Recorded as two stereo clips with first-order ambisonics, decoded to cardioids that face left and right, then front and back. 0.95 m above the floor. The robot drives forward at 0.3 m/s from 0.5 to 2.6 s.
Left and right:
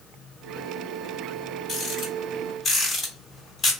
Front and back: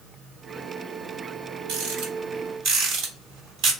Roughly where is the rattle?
Behind left.